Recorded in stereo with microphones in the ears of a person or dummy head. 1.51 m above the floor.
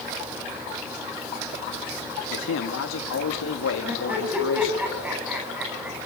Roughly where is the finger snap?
I don't hear a finger snap.